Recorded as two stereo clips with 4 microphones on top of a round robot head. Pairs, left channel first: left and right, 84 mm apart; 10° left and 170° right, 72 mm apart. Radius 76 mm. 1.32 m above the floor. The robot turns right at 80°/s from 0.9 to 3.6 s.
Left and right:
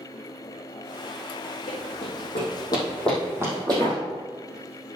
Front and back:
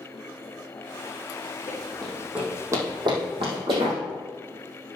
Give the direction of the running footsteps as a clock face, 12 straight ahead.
10 o'clock.